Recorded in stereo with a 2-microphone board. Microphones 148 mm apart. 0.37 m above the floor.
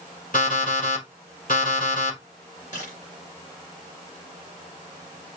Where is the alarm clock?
65° left (ahead or behind), 4.5 m.